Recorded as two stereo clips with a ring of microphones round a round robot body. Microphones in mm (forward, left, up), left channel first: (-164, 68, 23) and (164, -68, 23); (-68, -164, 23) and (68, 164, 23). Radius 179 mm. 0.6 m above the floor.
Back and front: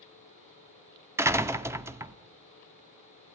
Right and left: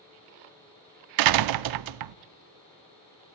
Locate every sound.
1.2 s a door slam: 60° left, 0.6 m